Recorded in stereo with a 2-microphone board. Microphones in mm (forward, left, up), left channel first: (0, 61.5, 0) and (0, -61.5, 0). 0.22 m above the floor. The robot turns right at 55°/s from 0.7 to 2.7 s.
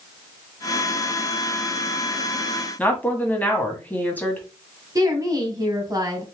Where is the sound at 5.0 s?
30° right (ahead or behind), 1.5 m.